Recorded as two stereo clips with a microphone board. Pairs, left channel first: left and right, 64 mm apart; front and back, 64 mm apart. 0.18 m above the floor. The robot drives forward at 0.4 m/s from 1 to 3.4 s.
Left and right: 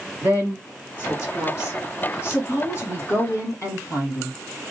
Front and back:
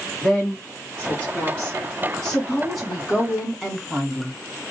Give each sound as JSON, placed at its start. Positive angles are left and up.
{"t": 0.2, "sound": "a woman speaking", "azimuth_deg": 60, "distance_m": 2.0}